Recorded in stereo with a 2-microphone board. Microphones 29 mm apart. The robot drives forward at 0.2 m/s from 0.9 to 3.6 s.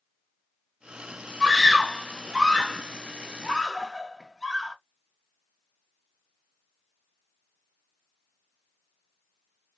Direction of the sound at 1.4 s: Centre (ahead or behind).